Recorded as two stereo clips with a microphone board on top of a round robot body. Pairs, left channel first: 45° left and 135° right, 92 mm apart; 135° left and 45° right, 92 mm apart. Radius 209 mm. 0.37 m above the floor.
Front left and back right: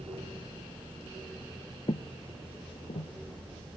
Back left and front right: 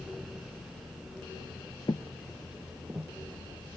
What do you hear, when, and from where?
1.9 s footsteps: 85° left; by 3.1 s 25° left